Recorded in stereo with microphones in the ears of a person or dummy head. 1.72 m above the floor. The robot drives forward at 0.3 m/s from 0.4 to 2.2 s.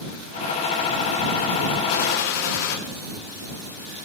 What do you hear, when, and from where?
1.9 s a gunshot: 65° left (ahead or behind), 1.7 m